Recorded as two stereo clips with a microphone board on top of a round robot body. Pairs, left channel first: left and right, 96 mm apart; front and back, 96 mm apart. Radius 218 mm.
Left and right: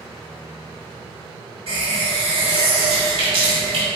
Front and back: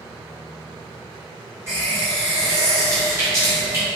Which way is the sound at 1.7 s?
115° right.